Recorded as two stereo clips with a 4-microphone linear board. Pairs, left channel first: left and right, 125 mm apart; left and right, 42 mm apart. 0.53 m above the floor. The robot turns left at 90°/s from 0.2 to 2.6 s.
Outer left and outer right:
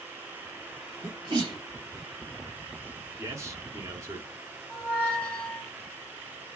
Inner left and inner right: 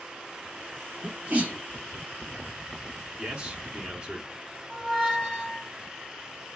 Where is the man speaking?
25° right (ahead or behind), 0.7 m.